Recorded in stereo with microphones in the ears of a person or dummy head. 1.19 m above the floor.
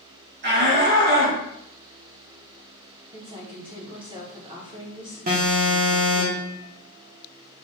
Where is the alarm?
45° right (ahead or behind), 0.7 m.